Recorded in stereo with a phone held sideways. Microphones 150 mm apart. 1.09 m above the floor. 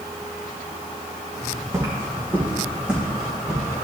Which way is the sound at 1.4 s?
25° right (ahead or behind).